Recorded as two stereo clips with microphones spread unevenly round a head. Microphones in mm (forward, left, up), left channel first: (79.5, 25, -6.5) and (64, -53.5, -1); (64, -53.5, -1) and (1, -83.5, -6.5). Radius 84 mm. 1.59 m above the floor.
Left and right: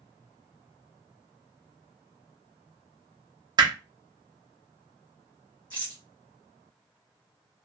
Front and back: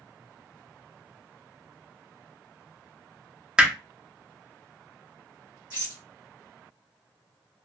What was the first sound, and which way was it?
Hammering, 75° right.